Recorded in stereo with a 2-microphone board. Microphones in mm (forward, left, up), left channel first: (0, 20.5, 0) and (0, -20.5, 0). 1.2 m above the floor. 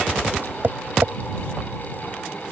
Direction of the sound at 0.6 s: 55° right (ahead or behind).